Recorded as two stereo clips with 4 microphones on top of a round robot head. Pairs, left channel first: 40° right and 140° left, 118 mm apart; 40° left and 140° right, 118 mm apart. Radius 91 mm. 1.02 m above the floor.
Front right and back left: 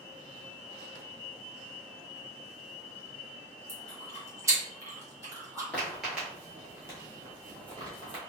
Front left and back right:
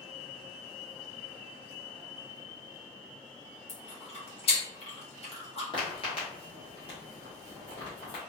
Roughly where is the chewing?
Left.